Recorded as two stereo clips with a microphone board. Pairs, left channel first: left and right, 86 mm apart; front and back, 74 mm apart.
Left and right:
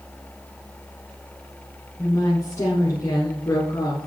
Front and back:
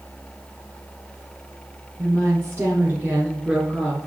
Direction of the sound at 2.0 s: 140° left.